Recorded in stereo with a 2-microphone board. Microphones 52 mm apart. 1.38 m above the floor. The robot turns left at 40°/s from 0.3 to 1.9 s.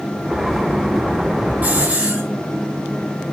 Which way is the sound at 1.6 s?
35° right (ahead or behind).